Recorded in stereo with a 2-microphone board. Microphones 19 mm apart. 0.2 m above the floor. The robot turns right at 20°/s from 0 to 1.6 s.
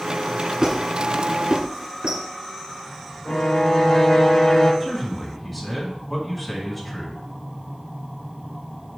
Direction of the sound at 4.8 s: 10° left (ahead or behind).